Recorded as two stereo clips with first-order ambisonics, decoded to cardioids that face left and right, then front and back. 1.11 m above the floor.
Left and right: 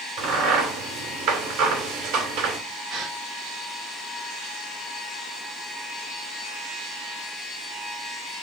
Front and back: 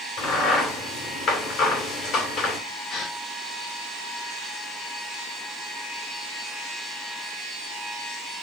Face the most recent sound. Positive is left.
turn(degrees=-45)